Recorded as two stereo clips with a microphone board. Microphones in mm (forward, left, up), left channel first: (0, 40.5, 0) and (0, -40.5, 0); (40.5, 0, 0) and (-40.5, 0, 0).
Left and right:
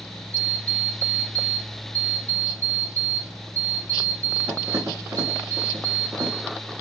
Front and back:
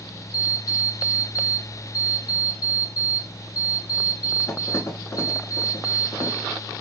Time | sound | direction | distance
0.3 | an alarm clock | 40° right | 1.2 m